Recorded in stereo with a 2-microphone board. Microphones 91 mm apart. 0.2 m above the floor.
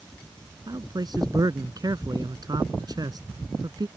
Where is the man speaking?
50° right (ahead or behind).